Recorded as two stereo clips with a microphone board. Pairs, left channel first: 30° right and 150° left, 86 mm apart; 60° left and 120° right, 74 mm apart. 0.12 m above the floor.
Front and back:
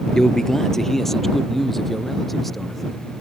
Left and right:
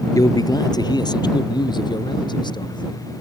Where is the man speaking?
50° left; by 3.0 s 60° left.